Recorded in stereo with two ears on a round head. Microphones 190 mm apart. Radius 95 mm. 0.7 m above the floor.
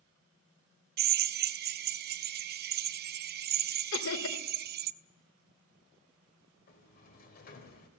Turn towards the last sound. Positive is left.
turn(degrees=45)  # may be behind; listen again after turning